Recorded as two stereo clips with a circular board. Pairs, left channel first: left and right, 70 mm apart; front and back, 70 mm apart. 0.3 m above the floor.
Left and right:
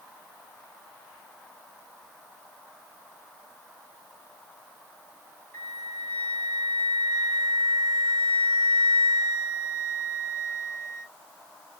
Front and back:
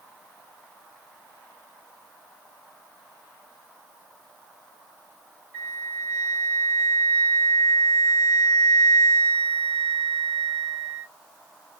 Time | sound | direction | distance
5.5 | a flute | 140° left | 2 m